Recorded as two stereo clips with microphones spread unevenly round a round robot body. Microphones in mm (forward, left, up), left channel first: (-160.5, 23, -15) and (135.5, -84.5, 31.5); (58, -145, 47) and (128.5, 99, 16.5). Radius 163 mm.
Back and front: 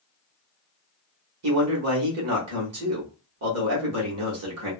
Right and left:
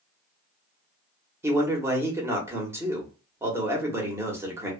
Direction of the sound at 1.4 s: 5° left.